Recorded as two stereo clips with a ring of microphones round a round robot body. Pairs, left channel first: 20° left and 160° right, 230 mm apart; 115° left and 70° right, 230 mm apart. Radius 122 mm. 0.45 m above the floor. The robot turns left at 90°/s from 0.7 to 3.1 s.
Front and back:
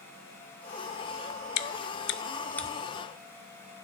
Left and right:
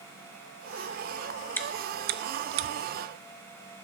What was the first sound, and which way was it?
Chewing, 30° left.